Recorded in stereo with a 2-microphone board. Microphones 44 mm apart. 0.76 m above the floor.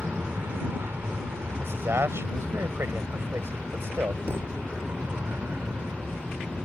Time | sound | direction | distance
0.0 | an aircraft | 60° right (ahead or behind) | ?
1.6 | a man speaking | 80° right | ?
4.3 | a thud | 75° right (ahead or behind) | ?